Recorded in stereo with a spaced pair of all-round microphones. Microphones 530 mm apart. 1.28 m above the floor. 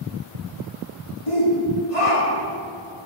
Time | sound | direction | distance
1.3 | a shout | 85° left | 3 m